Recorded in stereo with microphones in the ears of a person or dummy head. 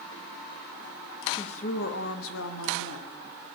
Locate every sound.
1.3 s a woman speaking: 30° left (ahead or behind), 1.4 m; by 3.6 s 75° left (ahead or behind), 3 m